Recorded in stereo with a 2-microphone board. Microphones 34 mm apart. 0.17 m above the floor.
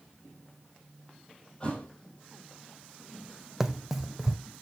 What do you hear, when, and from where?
1.6 s a thud: 30° left (ahead or behind), 3 m
3.6 s running footsteps: 5° right (ahead or behind), 0.5 m